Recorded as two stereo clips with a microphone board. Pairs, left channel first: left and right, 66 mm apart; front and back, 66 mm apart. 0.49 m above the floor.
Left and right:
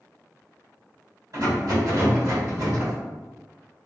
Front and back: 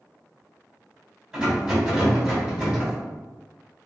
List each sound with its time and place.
1.3 s a rattle: 105° right, 1.9 m